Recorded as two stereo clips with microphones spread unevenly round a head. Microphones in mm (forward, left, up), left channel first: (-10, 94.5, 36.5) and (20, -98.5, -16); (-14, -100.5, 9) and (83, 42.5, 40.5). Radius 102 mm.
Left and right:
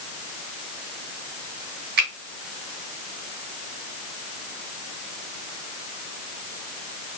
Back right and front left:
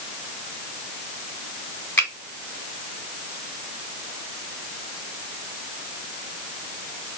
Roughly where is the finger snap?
Ahead right.